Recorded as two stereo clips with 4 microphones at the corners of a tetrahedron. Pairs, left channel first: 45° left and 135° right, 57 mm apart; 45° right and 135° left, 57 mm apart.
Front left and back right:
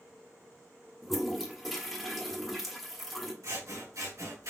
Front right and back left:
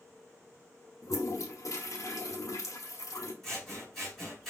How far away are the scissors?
About 2.5 m.